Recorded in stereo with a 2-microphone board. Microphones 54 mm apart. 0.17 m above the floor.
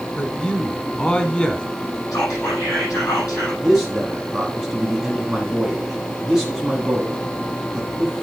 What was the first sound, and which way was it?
A man speaking, 20° left (ahead or behind).